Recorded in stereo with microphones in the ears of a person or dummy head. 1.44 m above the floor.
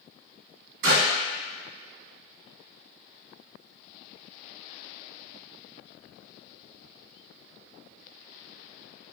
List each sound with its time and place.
0.8 s a clap: 70° right (ahead or behind), 1.2 m